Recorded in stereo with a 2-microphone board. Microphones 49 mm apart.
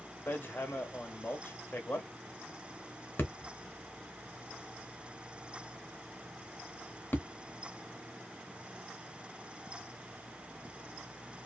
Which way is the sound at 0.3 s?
40° left (ahead or behind).